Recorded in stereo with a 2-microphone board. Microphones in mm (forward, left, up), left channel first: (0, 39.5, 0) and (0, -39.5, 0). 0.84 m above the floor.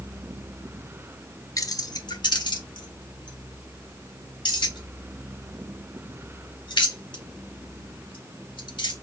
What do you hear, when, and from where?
1.6 s keys jangling: 45° left (ahead or behind), 0.6 m; by 8.9 s 90° left, 4.5 m